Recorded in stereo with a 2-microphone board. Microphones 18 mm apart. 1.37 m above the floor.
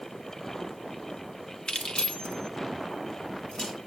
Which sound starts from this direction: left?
Keys jangling, at 1.7 s.